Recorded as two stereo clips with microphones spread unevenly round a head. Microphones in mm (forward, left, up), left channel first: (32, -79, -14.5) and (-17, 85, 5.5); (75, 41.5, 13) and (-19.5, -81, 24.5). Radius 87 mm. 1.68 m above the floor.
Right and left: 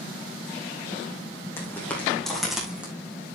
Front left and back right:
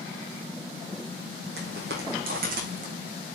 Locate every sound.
1.6 s footsteps: 150° right, 5.5 m; by 2.9 s 170° right, 6 m